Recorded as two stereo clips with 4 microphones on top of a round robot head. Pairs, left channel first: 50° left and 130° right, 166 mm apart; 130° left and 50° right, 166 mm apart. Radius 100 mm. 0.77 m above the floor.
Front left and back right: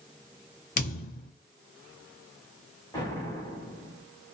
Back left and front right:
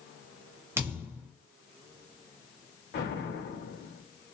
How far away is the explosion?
About 2.0 m.